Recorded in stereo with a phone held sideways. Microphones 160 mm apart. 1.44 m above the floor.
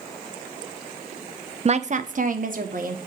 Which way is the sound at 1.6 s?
40° right (ahead or behind).